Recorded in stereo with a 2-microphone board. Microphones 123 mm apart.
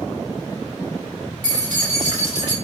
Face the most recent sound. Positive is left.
turn(degrees=-55)  # may be behind; listen again after turning